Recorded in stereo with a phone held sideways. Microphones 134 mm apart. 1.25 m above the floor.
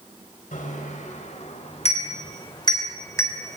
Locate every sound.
0.5 s a bicycle bell: 70° left (ahead or behind), 4.5 m; by 3.6 s 15° left (ahead or behind), 3.5 m